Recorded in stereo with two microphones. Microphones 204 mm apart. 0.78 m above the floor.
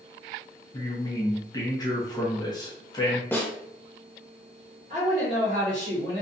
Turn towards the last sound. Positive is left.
turn(degrees=-40)  # may be behind; listen again after turning